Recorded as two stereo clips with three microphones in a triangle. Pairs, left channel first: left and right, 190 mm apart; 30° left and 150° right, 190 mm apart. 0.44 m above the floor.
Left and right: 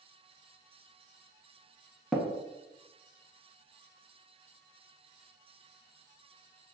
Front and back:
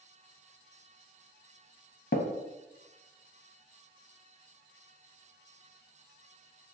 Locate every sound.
2.1 s tapping: straight ahead, 0.5 m